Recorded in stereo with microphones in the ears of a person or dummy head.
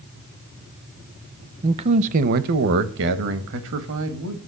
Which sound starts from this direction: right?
A man speaking, at 1.6 s.